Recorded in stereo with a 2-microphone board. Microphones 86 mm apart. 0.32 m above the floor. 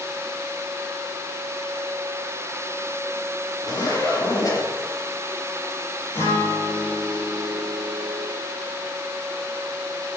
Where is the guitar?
30° left (ahead or behind), 4.5 m.